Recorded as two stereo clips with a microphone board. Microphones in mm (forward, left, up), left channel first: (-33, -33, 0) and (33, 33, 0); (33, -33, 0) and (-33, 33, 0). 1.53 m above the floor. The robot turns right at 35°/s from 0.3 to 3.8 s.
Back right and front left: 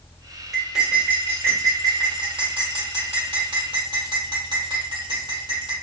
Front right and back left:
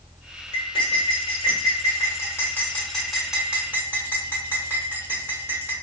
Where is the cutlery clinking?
45° right, 1.6 m; by 5.7 s 65° left, 1.6 m.